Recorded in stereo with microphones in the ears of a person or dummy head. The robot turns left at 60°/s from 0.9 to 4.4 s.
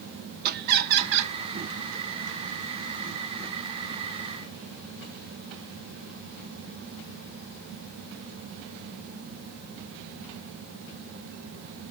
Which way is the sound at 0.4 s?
45° right (ahead or behind).